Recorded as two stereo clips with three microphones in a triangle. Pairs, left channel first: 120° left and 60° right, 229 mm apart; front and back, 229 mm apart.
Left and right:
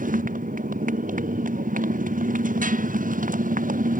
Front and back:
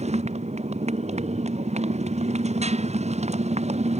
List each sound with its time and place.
0.0 s a motorcycle: 115° right